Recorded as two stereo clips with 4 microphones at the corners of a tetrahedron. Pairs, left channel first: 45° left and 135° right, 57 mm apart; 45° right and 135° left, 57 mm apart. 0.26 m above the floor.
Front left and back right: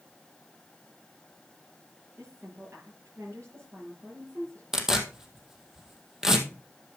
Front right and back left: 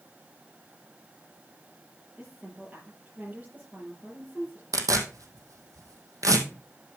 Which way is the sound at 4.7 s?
145° left.